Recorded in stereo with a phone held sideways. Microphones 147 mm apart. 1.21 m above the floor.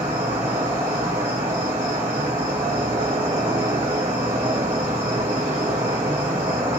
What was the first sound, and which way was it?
An insect, 45° right (ahead or behind).